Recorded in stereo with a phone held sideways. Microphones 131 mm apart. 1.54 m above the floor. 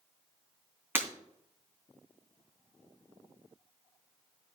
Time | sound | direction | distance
0.9 | breaking glass | 15° right (ahead or behind) | 2.5 m